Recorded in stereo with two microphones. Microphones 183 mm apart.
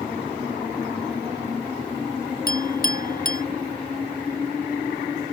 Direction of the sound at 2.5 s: 50° left (ahead or behind).